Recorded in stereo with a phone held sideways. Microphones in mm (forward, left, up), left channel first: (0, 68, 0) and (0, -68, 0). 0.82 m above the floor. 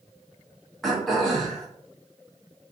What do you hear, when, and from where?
0.8 s throat clearing: centre (ahead or behind), 0.8 m